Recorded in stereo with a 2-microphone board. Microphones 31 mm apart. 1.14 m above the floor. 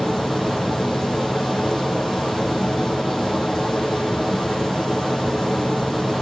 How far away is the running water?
About 5.5 m.